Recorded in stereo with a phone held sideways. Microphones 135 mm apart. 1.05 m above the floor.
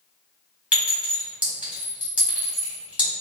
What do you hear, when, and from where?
0.7 s a clink: 10° right (ahead or behind), 2.0 m